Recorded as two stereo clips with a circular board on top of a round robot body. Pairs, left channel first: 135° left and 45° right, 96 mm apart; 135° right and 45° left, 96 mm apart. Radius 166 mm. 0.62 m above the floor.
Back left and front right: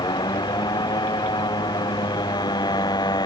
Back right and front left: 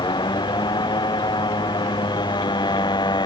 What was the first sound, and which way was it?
A motorcycle, straight behind.